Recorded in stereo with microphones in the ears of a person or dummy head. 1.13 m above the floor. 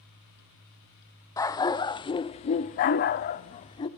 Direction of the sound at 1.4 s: 15° left (ahead or behind).